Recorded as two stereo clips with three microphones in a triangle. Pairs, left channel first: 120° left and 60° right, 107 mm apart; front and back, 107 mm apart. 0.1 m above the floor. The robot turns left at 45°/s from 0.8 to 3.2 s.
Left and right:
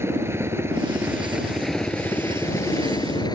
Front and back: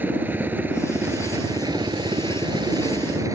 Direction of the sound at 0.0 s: 115° right.